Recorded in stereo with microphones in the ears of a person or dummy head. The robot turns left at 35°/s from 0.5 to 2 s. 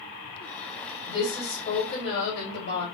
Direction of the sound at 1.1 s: 155° left.